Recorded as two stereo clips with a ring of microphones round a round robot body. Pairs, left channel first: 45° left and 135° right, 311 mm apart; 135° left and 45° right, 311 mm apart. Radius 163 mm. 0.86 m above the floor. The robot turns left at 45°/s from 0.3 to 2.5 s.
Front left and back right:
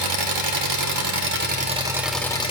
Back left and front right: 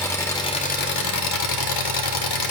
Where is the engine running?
145° right, 0.7 m; by 2.5 s 120° left, 0.7 m.